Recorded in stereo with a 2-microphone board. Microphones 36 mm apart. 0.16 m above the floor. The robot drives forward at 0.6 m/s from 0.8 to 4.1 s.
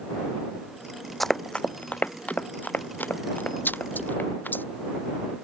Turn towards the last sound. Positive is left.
turn(degrees=75)  # may be behind; listen again after turning